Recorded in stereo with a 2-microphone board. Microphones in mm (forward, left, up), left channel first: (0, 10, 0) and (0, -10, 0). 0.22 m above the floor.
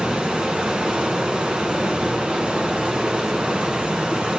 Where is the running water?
55° right (ahead or behind), 1.1 m.